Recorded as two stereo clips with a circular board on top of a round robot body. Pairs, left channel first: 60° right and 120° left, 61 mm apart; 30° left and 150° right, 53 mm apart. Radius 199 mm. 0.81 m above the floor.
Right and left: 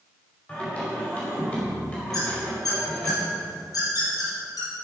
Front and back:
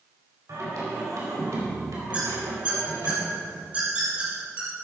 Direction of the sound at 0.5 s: 125° right.